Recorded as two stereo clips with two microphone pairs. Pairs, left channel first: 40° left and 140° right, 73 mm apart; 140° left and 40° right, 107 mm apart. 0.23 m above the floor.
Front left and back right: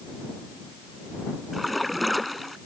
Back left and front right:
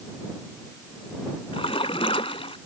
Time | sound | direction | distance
1.5 | a splash | 125° left | ?